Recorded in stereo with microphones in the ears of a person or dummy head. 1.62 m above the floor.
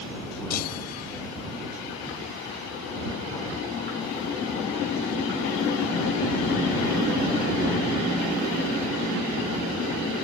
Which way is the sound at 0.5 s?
50° left (ahead or behind).